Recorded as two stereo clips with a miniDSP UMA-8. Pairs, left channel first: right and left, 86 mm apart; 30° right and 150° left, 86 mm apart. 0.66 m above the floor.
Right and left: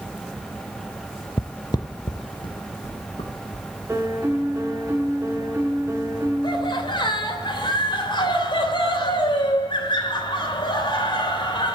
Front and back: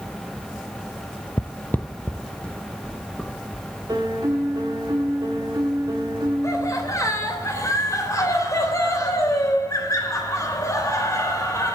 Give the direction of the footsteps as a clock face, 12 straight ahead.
2 o'clock.